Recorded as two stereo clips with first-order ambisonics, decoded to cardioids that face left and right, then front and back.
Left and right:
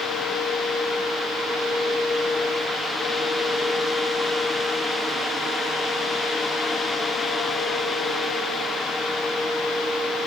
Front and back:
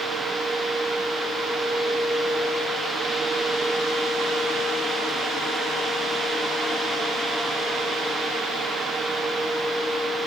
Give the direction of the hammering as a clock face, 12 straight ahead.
No hammering in this recording.